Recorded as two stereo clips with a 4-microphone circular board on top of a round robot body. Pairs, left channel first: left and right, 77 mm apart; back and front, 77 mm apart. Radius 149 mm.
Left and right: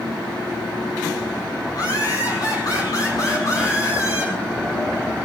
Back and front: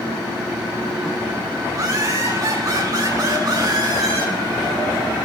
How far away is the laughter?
About 9.5 m.